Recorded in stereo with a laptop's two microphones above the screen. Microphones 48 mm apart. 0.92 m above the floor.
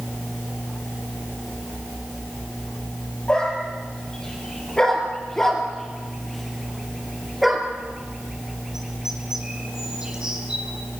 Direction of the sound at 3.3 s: 20° left (ahead or behind).